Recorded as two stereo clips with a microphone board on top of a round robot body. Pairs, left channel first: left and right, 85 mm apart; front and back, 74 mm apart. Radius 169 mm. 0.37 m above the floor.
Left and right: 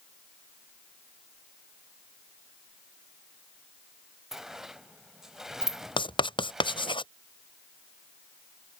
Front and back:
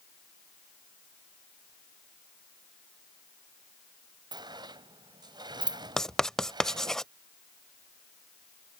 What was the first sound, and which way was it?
A sliding door, 175° right.